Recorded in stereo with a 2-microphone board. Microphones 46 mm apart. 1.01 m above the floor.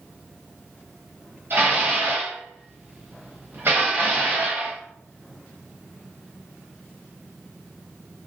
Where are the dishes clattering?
55° right (ahead or behind), 0.9 m.